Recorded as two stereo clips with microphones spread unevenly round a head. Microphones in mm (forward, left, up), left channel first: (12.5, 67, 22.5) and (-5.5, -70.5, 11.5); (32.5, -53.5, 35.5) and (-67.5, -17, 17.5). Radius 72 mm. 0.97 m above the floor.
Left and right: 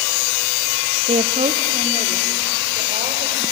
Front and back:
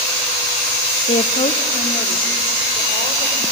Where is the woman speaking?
55° right, 0.7 m; by 3.4 s 50° right, 4 m.